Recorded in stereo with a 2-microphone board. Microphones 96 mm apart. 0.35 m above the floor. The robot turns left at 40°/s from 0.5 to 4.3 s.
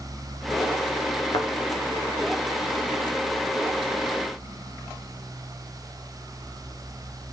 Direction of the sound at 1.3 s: 45° left (ahead or behind).